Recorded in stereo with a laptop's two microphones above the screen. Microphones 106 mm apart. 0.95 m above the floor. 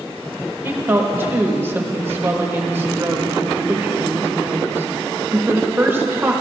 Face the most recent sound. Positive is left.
turn(degrees=-20)  # may be behind; listen again after turning